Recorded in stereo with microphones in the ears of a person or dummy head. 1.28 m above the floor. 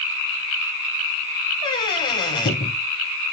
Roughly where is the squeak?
Left.